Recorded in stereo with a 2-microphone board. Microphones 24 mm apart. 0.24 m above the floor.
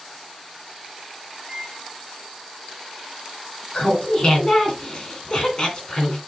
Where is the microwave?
15° right (ahead or behind), 1.7 m.